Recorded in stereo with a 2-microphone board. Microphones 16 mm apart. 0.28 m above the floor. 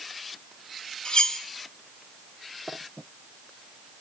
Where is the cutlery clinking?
60° left (ahead or behind), 1.2 m.